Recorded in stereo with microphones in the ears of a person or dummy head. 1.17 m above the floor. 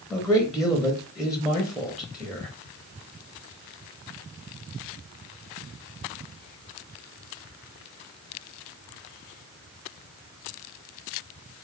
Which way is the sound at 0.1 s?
Centre (ahead or behind).